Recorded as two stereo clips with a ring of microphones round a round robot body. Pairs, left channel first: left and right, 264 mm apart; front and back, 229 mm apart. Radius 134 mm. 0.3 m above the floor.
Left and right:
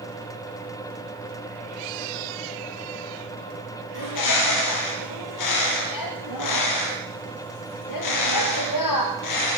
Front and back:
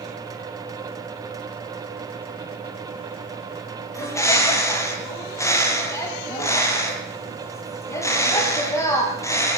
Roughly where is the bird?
Left.